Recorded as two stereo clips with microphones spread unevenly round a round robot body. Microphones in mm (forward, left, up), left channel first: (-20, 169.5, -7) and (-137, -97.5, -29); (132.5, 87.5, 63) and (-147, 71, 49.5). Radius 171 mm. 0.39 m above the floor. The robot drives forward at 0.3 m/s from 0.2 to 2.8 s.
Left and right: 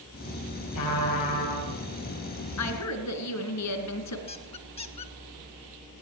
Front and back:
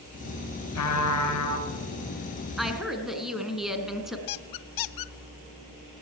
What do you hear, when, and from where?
0.8 s a trumpet: 30° left, 8 m
2.6 s a woman speaking: 95° left, 4 m
4.3 s a squeak: 5° right, 0.7 m